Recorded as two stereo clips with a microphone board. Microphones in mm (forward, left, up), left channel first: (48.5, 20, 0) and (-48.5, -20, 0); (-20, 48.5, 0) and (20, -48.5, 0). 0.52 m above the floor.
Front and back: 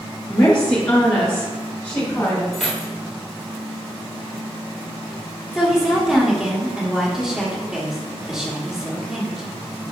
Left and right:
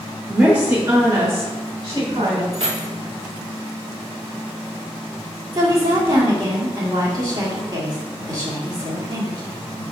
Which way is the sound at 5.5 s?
75° right.